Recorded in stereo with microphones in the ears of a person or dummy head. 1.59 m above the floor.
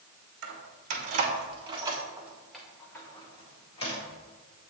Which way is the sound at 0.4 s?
55° right (ahead or behind).